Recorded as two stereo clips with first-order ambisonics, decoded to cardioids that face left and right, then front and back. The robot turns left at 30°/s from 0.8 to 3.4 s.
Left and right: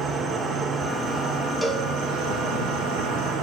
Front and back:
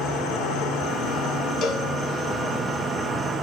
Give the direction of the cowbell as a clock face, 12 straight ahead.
12 o'clock.